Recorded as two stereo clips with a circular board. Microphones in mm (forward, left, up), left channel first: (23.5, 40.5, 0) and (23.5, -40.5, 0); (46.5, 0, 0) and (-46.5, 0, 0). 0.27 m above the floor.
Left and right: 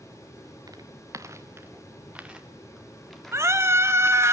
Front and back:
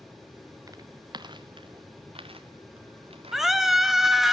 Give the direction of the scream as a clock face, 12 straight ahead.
3 o'clock.